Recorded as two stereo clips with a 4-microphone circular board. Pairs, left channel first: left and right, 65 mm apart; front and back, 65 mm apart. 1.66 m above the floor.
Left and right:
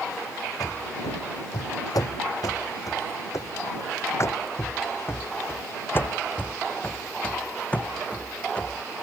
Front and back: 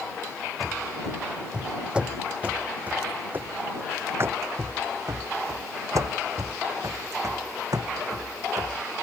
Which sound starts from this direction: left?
Running footsteps, at 0.6 s.